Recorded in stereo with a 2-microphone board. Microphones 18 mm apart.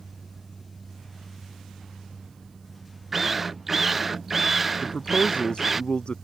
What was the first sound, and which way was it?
A drill, 10° right (ahead or behind).